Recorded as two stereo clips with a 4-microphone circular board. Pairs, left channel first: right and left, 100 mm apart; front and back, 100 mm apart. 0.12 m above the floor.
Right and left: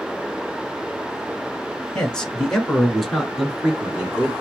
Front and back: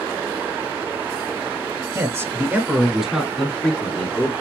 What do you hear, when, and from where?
1.9 s a man speaking: 165° right, 1.9 m; by 4.3 s 25° left, 1.8 m